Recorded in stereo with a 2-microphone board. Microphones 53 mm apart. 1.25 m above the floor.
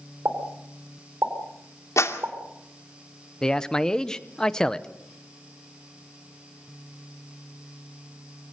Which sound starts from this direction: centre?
A man speaking, at 3.4 s.